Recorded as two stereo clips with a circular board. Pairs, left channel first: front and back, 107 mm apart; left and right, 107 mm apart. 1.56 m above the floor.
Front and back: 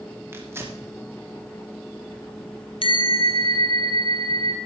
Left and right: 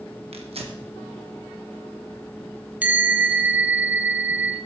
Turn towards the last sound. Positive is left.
turn(degrees=-20)